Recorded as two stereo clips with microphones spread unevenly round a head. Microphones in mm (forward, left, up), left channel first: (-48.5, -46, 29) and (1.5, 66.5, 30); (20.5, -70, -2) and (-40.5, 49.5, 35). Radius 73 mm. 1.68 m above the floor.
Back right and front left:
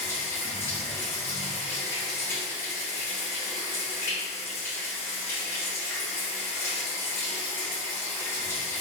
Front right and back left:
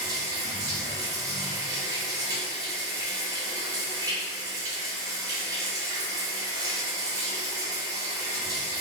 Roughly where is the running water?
Behind.